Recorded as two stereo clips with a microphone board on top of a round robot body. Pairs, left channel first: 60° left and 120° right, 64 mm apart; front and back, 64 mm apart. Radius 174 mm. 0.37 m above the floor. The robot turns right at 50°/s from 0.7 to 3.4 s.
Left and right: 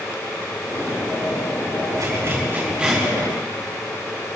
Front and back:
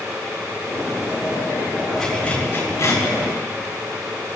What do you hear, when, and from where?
2.0 s a zipper: 90° right, 7.5 m; by 3.0 s 35° right, 7.5 m